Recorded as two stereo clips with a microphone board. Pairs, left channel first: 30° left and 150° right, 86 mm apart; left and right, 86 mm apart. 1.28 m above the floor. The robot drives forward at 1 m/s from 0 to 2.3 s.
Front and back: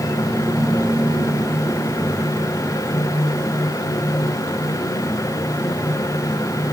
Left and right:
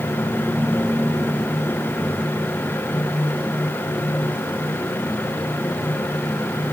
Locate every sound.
Only background noise.